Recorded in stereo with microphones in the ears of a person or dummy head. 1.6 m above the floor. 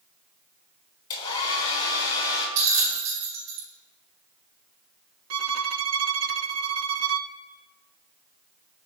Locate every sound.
1.1 s a hair dryer: 35° left (ahead or behind), 3.5 m
2.6 s a bell: 70° right (ahead or behind), 3 m
5.3 s a violin: 85° right, 0.5 m